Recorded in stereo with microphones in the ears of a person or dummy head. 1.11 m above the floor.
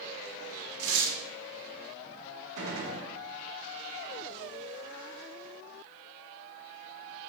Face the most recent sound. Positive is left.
turn(degrees=-65)  # may be behind; listen again after turning